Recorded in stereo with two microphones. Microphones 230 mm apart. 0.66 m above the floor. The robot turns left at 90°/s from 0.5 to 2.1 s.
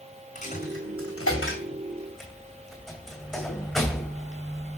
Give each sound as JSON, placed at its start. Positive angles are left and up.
{"t": 0.3, "sound": "a dropped coin", "side_deg": 35, "distance_m": 2.5}